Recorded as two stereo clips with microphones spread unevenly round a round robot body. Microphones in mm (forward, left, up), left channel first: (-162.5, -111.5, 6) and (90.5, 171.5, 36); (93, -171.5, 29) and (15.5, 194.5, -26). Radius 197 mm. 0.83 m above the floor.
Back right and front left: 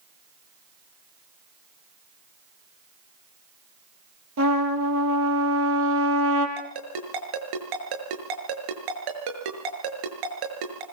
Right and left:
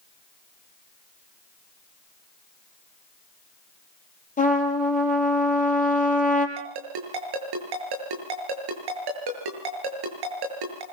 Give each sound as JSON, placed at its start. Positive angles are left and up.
{"t": 4.4, "sound": "a trumpet", "azimuth_deg": -10, "distance_m": 4.5}
{"t": 6.6, "sound": "a ringtone", "azimuth_deg": 75, "distance_m": 6.5}